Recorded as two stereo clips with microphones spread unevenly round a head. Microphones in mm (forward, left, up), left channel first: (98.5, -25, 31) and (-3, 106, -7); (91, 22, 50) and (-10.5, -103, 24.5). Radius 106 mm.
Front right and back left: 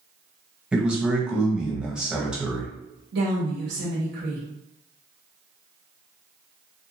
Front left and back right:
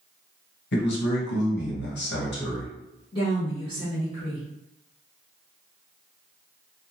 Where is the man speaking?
50° left, 1.2 m.